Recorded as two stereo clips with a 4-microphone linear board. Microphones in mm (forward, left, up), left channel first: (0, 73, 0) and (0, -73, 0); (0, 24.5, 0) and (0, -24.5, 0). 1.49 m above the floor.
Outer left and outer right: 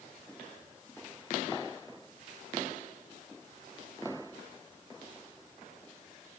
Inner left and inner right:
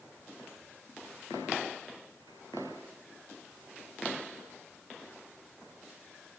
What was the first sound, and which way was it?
Only background noise.